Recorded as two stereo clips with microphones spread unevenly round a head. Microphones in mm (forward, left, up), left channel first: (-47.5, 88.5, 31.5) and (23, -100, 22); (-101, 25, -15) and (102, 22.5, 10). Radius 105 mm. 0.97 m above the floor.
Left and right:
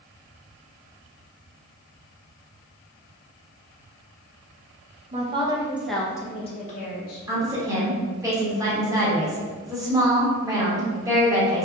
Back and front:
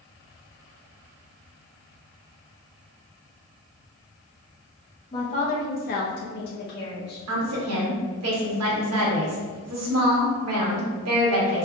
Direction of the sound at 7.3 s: 5° left.